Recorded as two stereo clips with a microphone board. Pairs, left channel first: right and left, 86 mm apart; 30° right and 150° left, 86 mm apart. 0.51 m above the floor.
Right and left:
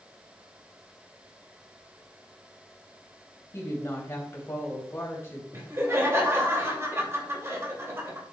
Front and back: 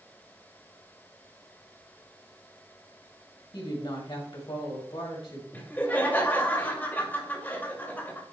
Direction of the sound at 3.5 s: 30° right.